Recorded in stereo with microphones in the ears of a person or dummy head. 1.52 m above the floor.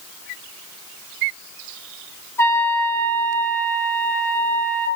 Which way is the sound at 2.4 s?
20° left (ahead or behind).